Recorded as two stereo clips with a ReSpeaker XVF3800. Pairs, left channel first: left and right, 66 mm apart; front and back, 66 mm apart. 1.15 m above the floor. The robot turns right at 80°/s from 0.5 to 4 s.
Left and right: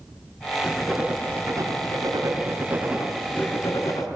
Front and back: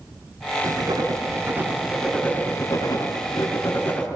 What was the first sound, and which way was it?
Writing, 165° left.